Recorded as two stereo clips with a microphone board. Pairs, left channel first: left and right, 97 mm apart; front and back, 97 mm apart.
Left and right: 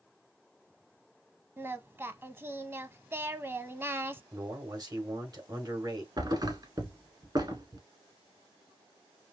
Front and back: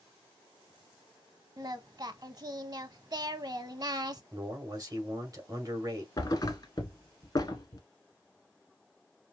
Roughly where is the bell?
I don't hear a bell.